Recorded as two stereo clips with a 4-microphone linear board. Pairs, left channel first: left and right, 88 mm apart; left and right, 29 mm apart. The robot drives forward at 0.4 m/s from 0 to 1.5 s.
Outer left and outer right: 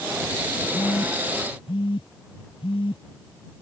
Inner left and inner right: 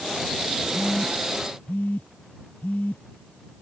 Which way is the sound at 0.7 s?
80° left.